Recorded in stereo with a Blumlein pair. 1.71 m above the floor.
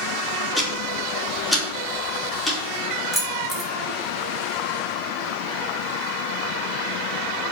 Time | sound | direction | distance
0.6 | ticking | 5° right | 2.5 m
3.1 | keys jangling | 10° right | 2 m